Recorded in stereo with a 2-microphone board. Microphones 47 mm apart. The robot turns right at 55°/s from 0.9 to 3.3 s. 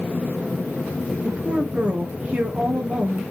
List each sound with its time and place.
1.2 s a woman speaking: 145° right, 1.4 m; by 3.2 s 35° right, 1.4 m